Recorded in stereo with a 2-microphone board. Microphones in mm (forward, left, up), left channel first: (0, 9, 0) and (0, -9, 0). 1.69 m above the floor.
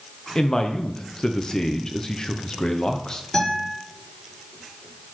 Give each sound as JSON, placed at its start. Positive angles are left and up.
{"t": 0.3, "sound": "a man speaking", "side_deg": 25, "distance_m": 0.6}
{"t": 3.3, "sound": "a guitar", "side_deg": 35, "distance_m": 4.5}